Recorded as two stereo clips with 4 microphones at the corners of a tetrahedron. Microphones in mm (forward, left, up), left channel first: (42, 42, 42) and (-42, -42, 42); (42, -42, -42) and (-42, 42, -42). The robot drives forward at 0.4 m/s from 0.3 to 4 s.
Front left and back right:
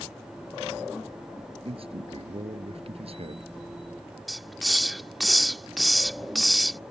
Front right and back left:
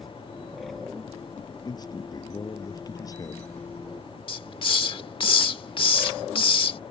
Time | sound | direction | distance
1.6 | a man speaking | 100° right | ?
4.3 | a hiss | 45° right | ?